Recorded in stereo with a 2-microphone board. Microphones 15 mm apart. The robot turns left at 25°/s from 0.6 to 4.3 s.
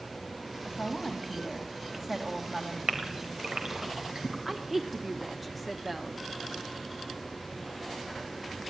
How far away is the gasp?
About 3 m.